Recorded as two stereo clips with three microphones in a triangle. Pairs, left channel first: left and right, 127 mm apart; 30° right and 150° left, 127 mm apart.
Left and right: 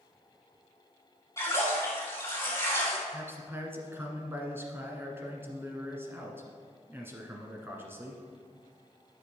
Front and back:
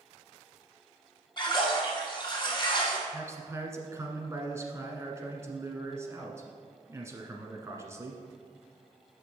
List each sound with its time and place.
1.4 s a splash: 25° left, 2.5 m
3.1 s a man speaking: 150° right, 1.4 m